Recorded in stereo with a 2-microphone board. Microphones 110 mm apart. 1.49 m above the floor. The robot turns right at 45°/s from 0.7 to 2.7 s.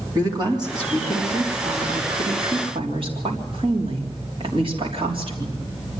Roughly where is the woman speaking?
Behind right.